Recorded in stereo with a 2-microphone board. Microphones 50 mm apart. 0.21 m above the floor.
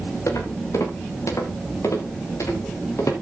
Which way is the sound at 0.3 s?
80° left.